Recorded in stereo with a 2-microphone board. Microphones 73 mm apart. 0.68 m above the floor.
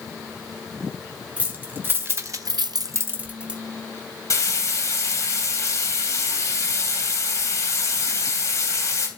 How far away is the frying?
About 2.5 m.